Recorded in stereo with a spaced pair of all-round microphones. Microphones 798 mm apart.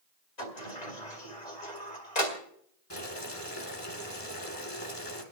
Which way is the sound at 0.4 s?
55° left (ahead or behind).